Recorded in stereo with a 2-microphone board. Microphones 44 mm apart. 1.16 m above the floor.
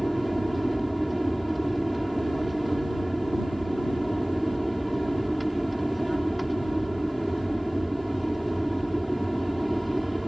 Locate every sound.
0.0 s an aircraft: centre (ahead or behind)